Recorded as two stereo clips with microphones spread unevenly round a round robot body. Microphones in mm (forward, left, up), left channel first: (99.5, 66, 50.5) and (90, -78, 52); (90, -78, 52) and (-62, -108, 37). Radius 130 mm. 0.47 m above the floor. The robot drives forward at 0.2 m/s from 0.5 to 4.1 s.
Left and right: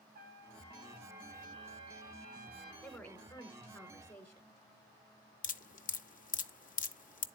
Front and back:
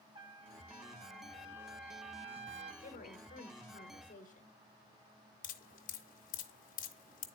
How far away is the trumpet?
About 1.6 m.